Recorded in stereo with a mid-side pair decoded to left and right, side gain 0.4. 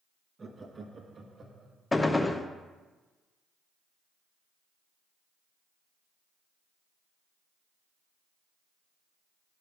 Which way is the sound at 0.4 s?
35° right.